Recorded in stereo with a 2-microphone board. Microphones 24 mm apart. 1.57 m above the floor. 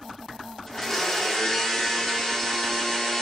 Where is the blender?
25° left (ahead or behind), 4 m.